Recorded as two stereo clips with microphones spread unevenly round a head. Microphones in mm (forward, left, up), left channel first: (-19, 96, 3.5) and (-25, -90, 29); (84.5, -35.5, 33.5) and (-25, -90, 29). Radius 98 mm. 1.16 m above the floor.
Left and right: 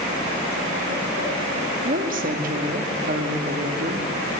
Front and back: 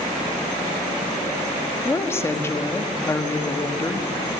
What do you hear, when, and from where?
1.9 s a woman speaking: 45° right, 1.8 m